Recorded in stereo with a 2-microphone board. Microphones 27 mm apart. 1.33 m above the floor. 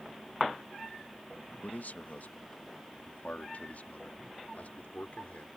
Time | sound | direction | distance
1.6 | a man speaking | 80° left | ?